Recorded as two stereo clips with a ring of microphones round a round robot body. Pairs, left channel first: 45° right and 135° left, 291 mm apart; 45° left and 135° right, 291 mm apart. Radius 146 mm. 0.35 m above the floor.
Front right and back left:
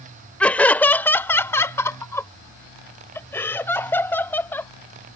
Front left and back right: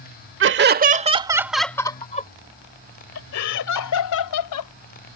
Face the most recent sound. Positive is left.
turn(degrees=40)